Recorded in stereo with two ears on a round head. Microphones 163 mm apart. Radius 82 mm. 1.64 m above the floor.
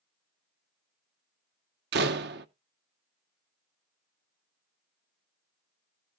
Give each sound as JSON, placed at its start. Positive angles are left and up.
{"t": 1.9, "sound": "a door slam", "side_deg": -65, "distance_m": 1.1}